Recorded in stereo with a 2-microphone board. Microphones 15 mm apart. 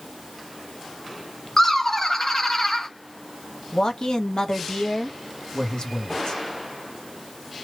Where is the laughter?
25° left (ahead or behind), 0.8 m.